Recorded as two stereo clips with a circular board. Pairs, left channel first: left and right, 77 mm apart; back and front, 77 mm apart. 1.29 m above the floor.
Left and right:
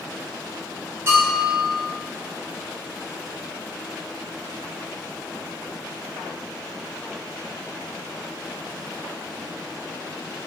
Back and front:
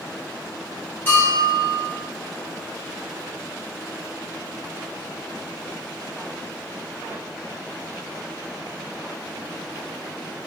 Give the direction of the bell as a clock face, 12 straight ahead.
4 o'clock.